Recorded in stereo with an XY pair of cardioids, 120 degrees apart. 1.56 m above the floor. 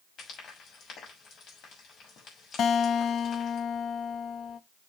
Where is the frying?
55° left, 7 m.